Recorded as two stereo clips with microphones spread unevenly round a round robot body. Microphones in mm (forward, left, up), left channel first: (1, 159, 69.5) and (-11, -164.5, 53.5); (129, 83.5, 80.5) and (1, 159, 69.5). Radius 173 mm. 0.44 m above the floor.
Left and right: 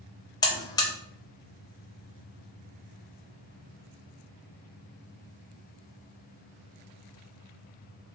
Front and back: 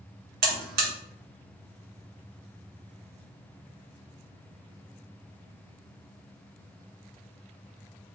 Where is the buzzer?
165° left, 0.6 m.